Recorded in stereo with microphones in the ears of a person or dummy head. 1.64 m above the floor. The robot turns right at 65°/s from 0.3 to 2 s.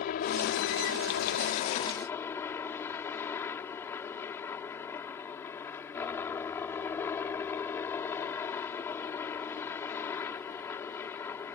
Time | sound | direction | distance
0.0 | a helicopter | 55° left | ?